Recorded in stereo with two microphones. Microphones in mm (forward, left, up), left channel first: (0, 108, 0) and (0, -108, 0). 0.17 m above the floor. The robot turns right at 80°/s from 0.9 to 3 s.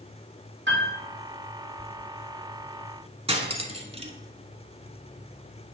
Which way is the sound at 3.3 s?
30° right (ahead or behind).